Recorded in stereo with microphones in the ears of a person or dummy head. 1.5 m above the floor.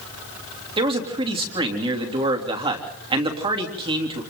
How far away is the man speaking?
About 3 m.